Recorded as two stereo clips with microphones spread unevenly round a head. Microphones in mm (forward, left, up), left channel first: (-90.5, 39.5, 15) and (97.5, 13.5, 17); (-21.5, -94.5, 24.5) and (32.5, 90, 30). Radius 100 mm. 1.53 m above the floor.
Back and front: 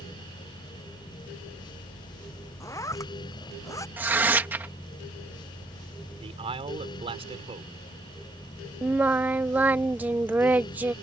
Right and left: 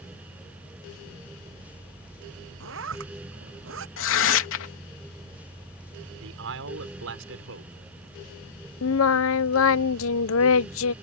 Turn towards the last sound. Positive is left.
turn(degrees=-90)